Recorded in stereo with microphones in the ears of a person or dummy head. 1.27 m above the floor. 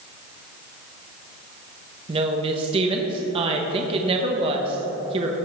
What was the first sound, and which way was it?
A woman speaking, 30° right (ahead or behind).